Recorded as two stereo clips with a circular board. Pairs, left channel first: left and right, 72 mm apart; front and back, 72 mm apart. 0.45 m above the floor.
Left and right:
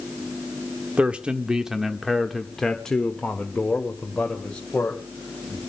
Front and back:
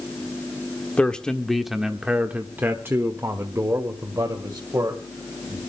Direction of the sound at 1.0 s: 45° right.